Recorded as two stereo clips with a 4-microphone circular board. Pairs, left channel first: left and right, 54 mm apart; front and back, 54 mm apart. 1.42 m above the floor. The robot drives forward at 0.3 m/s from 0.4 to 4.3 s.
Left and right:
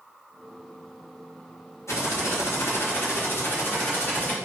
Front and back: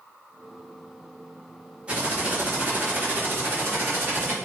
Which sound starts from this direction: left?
Typing on a keyboard, at 1.9 s.